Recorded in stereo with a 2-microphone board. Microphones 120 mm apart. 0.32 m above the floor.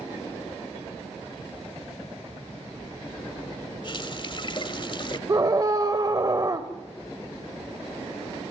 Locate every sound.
3.8 s a running tap: 45° left (ahead or behind), 1.1 m
5.3 s a scream: 30° right (ahead or behind), 1.0 m